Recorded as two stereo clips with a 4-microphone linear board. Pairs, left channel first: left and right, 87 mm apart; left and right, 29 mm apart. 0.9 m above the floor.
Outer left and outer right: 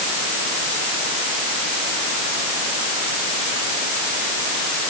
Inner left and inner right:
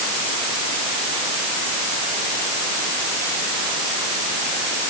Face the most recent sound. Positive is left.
No sound to turn to.